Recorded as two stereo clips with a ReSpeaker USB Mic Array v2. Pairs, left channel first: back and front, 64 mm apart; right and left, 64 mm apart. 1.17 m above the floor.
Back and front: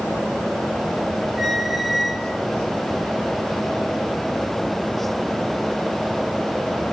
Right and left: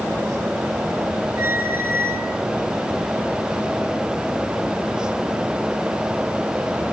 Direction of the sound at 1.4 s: 85° left.